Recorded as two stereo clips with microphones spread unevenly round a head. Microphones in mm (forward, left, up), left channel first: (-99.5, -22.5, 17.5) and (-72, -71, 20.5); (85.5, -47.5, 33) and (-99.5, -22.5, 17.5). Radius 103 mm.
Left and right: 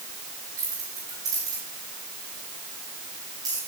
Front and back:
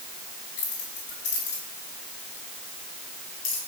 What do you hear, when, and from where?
0.6 s keys jangling: 35° right, 8.5 m; by 3.6 s 25° right, 6.5 m